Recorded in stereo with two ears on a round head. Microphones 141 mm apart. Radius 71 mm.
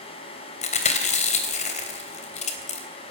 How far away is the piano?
I don't hear a piano.